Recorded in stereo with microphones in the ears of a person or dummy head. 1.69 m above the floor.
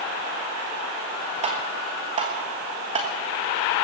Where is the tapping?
30° right (ahead or behind), 1.3 m.